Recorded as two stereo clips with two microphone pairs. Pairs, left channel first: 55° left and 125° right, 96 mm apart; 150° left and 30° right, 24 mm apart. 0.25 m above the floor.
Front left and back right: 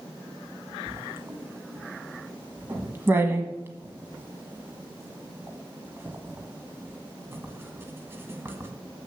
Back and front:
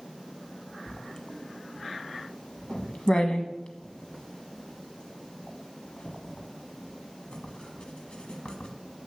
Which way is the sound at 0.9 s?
175° left.